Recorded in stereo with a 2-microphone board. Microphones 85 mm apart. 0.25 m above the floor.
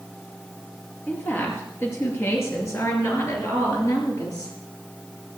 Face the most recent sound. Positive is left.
turn(degrees=50)  # may be behind; listen again after turning